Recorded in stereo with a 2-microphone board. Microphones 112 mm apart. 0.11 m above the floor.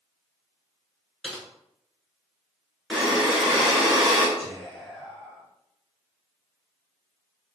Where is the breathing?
5° right (ahead or behind), 0.9 m.